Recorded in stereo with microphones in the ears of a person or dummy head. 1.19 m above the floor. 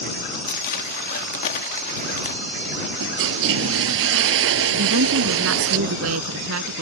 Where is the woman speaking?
85° right.